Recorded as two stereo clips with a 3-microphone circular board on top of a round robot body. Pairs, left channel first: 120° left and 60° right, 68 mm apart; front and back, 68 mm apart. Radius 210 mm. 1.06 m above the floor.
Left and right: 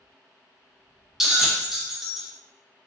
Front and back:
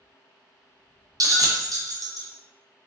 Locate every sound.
1.2 s a bell: 145° right, 0.6 m